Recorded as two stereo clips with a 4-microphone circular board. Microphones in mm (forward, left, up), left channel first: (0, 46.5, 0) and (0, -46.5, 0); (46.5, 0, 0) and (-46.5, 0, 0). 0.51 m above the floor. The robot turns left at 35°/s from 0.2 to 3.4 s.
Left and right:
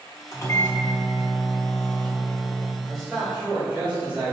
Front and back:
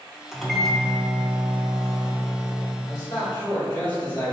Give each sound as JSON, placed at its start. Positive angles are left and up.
{"t": 0.3, "sound": "a microwave", "azimuth_deg": 90, "distance_m": 0.7}
{"t": 2.8, "sound": "a man speaking", "azimuth_deg": 5, "distance_m": 2.0}